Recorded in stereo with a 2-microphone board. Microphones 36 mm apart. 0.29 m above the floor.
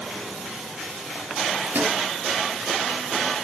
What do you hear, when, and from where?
1.6 s a microwave: 75° right (ahead or behind), 5 m